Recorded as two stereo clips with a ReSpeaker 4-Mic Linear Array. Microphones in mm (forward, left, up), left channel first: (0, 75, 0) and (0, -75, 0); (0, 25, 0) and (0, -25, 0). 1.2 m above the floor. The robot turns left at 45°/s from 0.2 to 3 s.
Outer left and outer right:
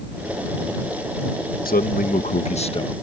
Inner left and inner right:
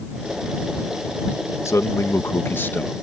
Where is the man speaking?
90° left; by 3.0 s 30° left.